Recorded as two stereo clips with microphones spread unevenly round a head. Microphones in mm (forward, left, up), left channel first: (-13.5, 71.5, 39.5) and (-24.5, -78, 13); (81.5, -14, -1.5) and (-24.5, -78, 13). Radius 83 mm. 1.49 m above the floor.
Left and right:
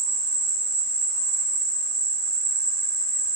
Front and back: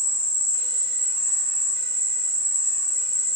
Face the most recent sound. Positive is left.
turn(degrees=-145)